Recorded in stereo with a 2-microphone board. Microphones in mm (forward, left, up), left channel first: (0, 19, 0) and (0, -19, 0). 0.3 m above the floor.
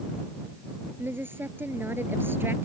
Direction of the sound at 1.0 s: 75° right (ahead or behind).